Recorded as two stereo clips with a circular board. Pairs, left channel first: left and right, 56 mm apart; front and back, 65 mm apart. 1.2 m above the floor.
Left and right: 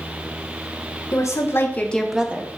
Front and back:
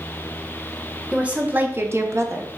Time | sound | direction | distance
1.1 | a woman speaking | 110° left | 1.0 m